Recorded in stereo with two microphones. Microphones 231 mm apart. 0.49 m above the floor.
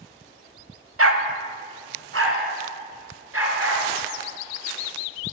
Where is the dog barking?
70° right (ahead or behind), 0.6 m; by 3.8 s 75° right (ahead or behind), 2.5 m.